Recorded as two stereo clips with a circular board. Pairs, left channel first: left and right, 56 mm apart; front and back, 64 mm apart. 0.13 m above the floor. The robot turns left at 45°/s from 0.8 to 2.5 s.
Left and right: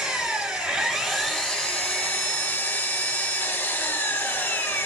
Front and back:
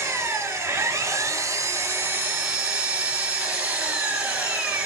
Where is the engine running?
160° right, 1.0 m; by 4.9 s 120° left, 1.0 m.